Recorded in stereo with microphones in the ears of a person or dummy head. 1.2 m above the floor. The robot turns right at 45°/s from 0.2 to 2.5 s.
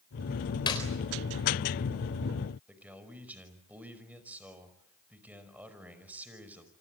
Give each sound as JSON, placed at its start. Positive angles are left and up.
{"t": 0.7, "sound": "a clap", "side_deg": 25, "distance_m": 4.0}
{"t": 2.7, "sound": "a man speaking", "side_deg": -10, "distance_m": 5.5}